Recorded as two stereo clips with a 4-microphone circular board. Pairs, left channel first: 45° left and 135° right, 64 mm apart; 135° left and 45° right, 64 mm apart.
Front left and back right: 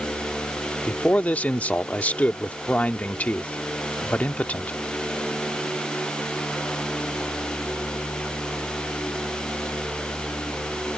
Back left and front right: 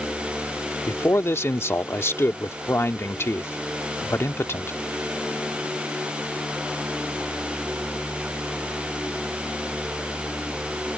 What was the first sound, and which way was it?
A man speaking, 105° left.